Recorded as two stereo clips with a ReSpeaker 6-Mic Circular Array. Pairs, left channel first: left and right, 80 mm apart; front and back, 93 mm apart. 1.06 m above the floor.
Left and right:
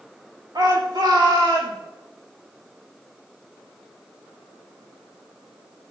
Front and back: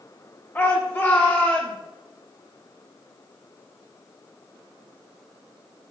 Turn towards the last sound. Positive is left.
turn(degrees=-65)